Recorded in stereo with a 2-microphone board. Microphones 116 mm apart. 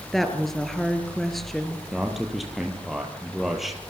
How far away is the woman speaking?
About 3.5 m.